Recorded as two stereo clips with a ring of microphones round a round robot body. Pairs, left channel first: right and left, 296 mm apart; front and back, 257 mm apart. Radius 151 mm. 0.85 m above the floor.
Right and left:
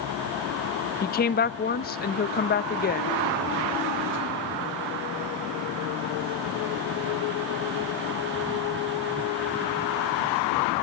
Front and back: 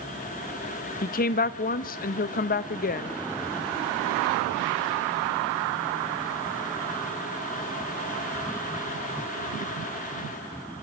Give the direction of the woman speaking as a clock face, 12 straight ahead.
1 o'clock.